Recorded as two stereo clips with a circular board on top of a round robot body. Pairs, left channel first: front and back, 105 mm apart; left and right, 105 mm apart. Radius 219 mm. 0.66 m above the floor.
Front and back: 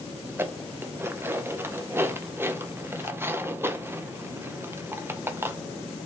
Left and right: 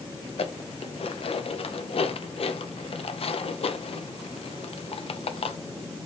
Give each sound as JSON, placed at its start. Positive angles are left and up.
{"t": 0.3, "sound": "dishes clattering", "azimuth_deg": 110, "distance_m": 0.6}